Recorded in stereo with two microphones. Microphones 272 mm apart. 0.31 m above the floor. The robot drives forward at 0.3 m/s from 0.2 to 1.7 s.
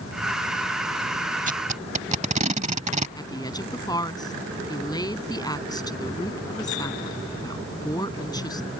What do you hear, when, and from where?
1.5 s tape being pulled: 30° right (ahead or behind); by 3.1 s 25° right (ahead or behind)
3.2 s a woman speaking: 15° left (ahead or behind)